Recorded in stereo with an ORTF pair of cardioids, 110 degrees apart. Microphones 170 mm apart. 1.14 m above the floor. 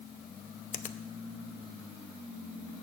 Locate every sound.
0.7 s a finger snap: 50° left, 0.7 m